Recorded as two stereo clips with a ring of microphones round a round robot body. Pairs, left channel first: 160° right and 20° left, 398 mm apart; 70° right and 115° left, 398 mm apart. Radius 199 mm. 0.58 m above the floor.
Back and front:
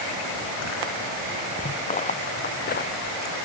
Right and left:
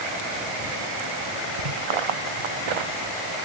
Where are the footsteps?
130° left; by 3.2 s 135° left.